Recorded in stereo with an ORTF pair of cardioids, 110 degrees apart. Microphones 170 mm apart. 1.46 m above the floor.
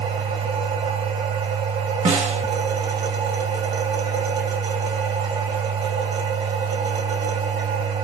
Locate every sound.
0.0 s a machine running: 60° right, 1.9 m
2.0 s a snare drum: 40° right, 1.0 m